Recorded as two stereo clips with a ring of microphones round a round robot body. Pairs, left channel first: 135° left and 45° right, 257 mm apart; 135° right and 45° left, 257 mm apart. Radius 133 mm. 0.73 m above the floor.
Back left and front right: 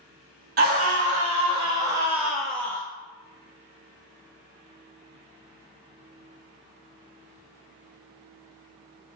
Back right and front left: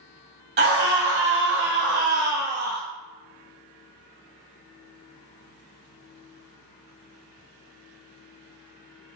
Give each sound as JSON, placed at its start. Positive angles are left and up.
{"t": 0.6, "sound": "a scream", "azimuth_deg": 5, "distance_m": 1.7}